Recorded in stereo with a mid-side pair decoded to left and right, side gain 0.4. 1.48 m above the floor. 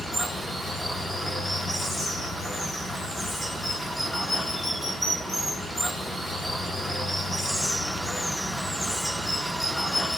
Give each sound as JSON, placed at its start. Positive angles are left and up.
{"t": 0.0, "sound": "running water", "azimuth_deg": 0, "distance_m": 3.0}